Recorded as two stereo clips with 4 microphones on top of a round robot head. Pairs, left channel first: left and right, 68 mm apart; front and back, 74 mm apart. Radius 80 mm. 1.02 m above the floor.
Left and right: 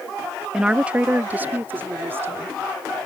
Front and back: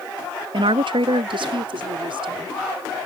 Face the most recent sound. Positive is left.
turn(degrees=-155)